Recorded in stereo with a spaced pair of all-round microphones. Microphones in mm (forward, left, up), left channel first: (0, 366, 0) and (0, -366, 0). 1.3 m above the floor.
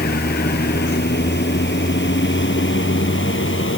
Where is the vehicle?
15° left (ahead or behind).